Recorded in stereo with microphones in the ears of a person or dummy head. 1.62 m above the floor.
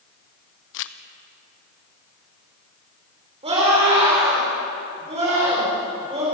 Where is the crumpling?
65° left (ahead or behind), 0.9 m.